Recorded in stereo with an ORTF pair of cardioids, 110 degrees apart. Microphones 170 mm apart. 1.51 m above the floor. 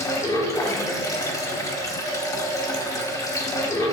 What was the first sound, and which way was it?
Running water, 20° left.